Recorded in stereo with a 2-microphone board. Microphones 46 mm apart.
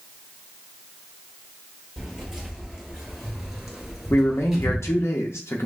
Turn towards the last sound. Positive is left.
turn(degrees=70)  # may be behind; listen again after turning